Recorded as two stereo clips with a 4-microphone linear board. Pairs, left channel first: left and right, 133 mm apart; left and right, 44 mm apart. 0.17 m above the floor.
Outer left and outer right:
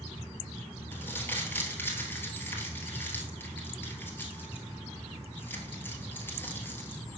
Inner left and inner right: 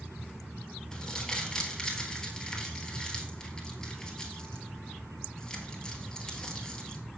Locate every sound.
0.9 s crumpling: 15° left (ahead or behind), 1.4 m